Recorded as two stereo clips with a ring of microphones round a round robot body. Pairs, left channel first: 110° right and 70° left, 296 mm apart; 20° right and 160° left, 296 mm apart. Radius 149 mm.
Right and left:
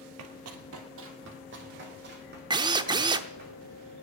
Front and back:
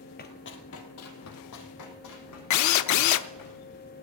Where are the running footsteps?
35° left, 1.6 m; by 3.5 s 5° left, 5 m.